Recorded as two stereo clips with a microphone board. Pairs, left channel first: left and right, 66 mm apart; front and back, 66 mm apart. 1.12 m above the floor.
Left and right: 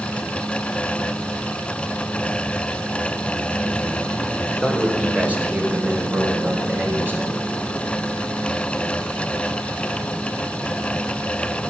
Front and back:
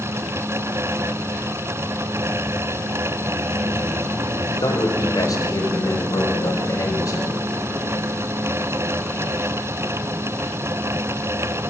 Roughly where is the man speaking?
Ahead.